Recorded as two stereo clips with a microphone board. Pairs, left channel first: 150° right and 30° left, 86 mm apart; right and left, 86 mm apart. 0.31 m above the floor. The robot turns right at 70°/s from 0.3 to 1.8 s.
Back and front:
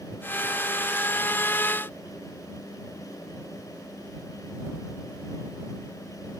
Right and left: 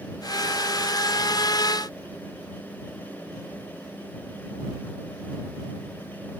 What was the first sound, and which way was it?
Only background noise.